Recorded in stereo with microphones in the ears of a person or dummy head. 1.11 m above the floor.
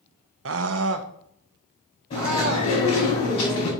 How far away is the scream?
About 0.5 m.